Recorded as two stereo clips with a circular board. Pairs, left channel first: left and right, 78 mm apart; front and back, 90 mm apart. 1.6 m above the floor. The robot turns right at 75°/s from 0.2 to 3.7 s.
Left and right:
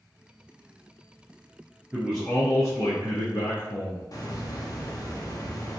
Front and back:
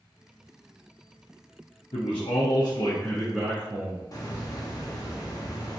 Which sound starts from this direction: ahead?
A man speaking, at 1.9 s.